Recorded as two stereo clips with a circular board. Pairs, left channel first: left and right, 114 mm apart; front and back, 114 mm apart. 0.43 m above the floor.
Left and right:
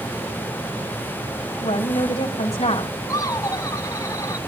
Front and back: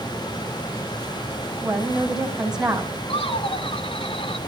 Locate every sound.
1.6 s a woman speaking: 95° left, 3 m
3.1 s laughter: 30° left, 3.5 m